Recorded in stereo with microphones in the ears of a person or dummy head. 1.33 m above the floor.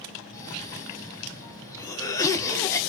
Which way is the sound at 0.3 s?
20° left (ahead or behind).